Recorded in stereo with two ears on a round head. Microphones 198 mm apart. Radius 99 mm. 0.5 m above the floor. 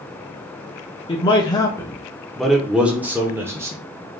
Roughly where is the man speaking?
Left.